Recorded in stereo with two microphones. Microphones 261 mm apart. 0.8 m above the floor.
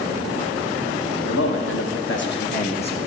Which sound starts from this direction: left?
A man speaking, at 1.3 s.